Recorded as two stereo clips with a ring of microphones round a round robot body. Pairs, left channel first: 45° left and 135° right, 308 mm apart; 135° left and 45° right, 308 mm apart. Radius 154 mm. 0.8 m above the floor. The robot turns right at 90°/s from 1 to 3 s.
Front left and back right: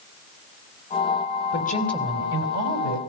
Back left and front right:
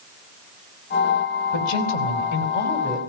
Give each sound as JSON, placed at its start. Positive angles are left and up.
{"t": 1.5, "sound": "a woman speaking", "azimuth_deg": 100, "distance_m": 4.5}